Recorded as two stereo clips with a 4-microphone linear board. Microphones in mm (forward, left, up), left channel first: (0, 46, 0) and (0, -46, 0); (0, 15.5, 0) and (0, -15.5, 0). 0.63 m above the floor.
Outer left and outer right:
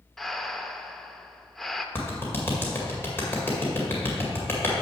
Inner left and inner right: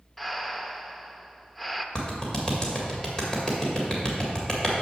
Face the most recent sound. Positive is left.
turn(degrees=20)  # may be behind; listen again after turning